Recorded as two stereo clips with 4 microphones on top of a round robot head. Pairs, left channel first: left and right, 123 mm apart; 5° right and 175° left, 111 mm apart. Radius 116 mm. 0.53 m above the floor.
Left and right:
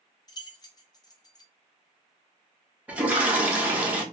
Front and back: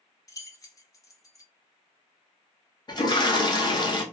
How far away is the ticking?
No ticking in this recording.